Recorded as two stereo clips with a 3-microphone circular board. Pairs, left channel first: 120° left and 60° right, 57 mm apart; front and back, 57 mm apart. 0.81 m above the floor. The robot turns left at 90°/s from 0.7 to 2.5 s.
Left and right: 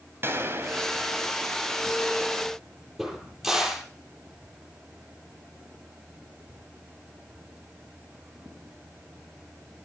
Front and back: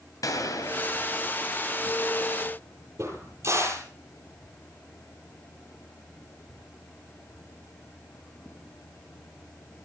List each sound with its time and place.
0.2 s a gunshot: 10° right, 3.5 m; by 1.4 s 75° right, 3.5 m
3.0 s a crack: 145° right, 10 m